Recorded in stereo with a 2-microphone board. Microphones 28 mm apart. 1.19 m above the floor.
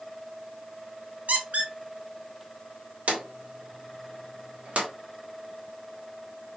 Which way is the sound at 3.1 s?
60° right (ahead or behind).